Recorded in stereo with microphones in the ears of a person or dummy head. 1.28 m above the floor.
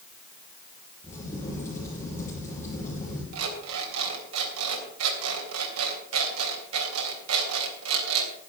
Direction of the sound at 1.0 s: 15° left (ahead or behind).